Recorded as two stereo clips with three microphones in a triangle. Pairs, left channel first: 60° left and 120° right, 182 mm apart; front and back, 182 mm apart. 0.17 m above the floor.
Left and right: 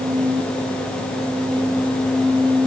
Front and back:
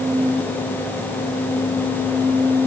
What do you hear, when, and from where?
Only background noise.